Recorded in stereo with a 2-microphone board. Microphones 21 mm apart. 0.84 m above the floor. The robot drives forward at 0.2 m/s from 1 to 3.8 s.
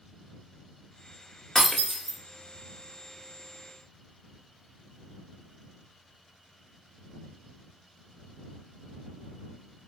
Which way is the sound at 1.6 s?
20° left (ahead or behind).